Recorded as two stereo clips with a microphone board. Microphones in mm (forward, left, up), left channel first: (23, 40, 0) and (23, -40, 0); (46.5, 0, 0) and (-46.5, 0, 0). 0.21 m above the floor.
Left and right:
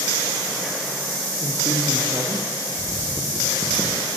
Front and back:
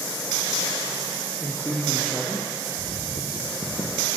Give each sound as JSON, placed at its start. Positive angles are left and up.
{"t": 1.4, "sound": "a man speaking", "azimuth_deg": -80, "distance_m": 6.0}
{"t": 2.8, "sound": "footsteps", "azimuth_deg": -15, "distance_m": 5.0}